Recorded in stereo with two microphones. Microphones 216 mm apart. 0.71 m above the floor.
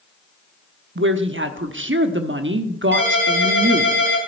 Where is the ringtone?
60° right (ahead or behind), 5.5 m.